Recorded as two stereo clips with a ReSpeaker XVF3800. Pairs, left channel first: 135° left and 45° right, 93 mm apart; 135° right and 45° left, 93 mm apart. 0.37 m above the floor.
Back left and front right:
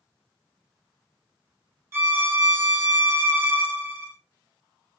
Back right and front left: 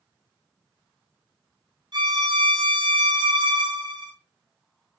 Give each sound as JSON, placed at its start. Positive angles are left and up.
{"t": 1.9, "sound": "a violin", "azimuth_deg": 15, "distance_m": 0.6}